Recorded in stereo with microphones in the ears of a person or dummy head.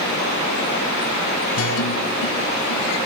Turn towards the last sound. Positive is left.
turn(degrees=80)